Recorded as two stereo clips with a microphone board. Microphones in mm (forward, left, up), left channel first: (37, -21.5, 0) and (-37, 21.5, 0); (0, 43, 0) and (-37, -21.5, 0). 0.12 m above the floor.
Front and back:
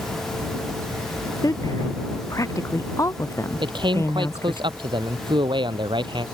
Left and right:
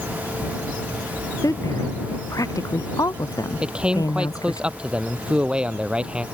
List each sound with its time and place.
1.4 s a woman speaking: 20° left; by 4.6 s 30° left
3.6 s a man speaking: 165° left